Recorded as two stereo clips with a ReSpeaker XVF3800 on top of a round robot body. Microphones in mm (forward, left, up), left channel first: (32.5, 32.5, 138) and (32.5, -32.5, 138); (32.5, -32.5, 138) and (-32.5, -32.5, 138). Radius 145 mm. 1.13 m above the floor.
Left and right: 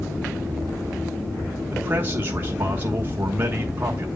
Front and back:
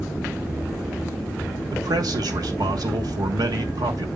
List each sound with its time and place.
1.7 s a man speaking: 150° right, 1.3 m